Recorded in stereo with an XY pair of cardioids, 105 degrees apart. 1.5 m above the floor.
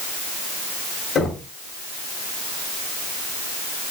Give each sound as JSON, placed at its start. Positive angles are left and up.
{"t": 1.1, "sound": "knocking", "azimuth_deg": 60, "distance_m": 6.0}